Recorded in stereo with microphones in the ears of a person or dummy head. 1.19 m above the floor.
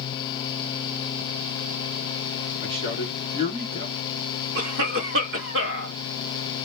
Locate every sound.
2.6 s a man speaking: 40° right (ahead or behind), 1.5 m
4.5 s a cough: 65° right (ahead or behind), 1.6 m